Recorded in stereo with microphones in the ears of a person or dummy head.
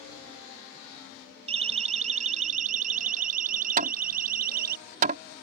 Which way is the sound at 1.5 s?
30° right (ahead or behind).